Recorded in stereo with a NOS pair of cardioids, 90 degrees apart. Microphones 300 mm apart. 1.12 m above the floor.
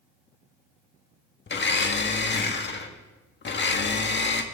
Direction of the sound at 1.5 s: 35° left.